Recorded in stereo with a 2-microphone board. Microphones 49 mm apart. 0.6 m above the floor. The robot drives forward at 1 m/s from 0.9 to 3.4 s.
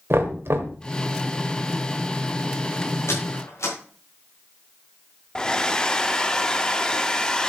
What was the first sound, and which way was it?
Knocking, 55° right (ahead or behind).